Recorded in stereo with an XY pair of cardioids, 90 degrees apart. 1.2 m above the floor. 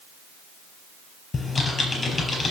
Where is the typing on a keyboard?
45° left, 4.5 m.